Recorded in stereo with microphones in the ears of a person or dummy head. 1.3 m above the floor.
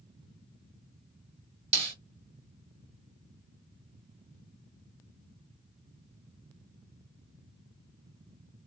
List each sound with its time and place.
1.7 s a snare drum: 30° right (ahead or behind), 1.3 m